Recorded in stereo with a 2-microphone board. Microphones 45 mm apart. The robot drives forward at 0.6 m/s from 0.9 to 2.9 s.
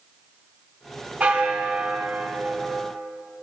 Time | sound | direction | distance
1.2 | a bell | 25° right (ahead or behind) | 1.2 m